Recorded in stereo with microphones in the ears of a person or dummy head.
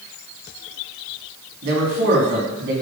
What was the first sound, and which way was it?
A man speaking, 65° right (ahead or behind).